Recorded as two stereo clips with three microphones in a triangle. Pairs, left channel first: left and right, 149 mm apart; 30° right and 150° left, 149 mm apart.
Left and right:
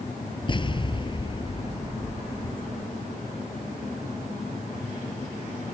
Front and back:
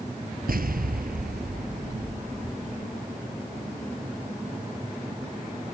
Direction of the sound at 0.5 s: 145° left.